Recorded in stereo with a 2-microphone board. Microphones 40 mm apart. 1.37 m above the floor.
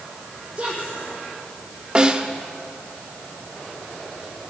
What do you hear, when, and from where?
0.6 s a woman speaking: 25° right (ahead or behind), 5.5 m
1.9 s a snare drum: 20° right (ahead or behind), 1.0 m